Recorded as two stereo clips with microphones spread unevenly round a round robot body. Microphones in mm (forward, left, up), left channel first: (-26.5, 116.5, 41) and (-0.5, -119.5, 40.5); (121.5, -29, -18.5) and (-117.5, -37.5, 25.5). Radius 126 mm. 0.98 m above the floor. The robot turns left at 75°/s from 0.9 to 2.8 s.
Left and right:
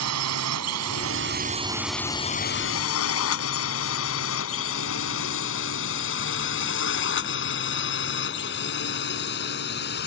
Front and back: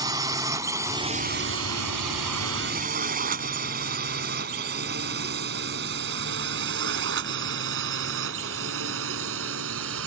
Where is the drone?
105° right; by 10.1 s 145° left.